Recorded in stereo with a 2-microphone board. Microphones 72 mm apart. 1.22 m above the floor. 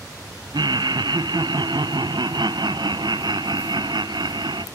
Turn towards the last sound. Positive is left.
turn(degrees=-85)